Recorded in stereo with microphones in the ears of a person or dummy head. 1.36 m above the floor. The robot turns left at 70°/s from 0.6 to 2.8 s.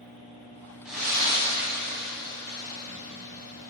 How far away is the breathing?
About 0.9 m.